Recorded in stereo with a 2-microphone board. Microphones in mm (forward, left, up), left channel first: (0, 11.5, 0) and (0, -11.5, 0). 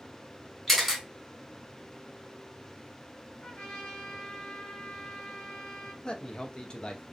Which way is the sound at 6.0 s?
40° left (ahead or behind).